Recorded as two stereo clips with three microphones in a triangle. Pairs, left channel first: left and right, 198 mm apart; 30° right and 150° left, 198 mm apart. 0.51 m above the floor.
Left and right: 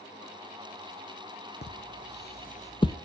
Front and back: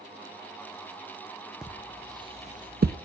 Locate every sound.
1.6 s footsteps: 65° left, 1.2 m; by 3.0 s 160° left, 0.8 m